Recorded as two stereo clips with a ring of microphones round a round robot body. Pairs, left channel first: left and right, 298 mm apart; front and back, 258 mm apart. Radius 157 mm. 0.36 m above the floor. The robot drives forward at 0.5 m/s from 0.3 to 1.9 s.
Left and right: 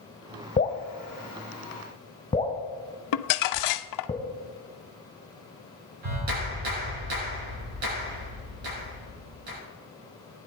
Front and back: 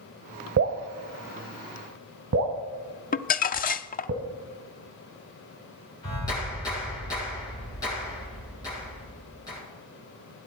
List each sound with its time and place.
0.6 s dripping: 155° left, 1.1 m; by 4.1 s 165° left, 1.7 m
3.1 s crumpling: 60° left, 0.5 m
6.0 s a clap: 80° right, 5.5 m